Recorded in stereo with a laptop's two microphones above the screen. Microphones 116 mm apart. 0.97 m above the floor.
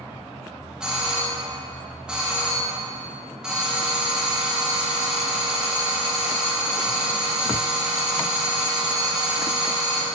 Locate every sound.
0.8 s a doorbell: 5° right (ahead or behind), 1.2 m